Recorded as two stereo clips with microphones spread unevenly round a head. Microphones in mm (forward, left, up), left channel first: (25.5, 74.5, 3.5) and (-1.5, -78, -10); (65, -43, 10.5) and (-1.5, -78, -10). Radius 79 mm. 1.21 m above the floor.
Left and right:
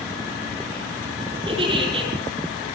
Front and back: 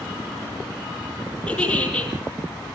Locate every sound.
1.5 s a giggle: 45° right, 6 m